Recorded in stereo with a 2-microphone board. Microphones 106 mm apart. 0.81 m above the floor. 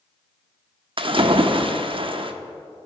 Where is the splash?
55° right (ahead or behind), 0.6 m.